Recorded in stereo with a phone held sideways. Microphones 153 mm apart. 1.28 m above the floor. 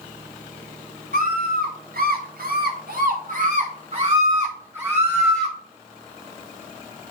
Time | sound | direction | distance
1.1 | a scream | 65° right (ahead or behind) | 1.6 m